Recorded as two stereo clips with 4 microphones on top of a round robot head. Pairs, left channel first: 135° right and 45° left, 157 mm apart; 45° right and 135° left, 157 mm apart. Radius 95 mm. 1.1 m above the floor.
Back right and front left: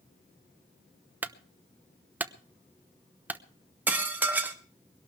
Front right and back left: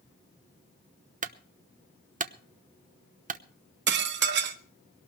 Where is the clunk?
125° left, 0.9 m.